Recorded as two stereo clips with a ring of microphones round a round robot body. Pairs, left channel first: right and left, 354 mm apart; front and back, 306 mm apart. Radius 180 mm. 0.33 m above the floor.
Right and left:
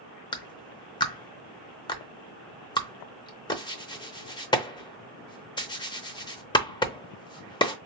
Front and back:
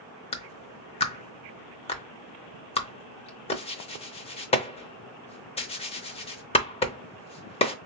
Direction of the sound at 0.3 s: 35° right.